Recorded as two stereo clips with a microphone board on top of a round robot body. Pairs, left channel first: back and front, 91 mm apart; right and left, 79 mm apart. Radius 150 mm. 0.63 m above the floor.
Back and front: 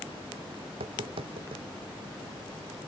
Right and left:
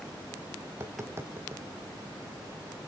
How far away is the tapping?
About 0.6 m.